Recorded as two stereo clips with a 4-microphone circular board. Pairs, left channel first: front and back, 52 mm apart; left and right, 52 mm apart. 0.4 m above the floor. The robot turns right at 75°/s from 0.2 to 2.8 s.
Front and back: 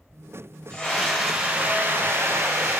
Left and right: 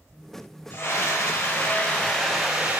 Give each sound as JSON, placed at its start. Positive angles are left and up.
{"t": 0.7, "sound": "a scream", "azimuth_deg": 75, "distance_m": 1.4}